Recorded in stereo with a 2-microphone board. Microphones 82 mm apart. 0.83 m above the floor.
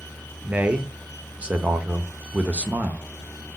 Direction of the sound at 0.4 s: 15° right (ahead or behind).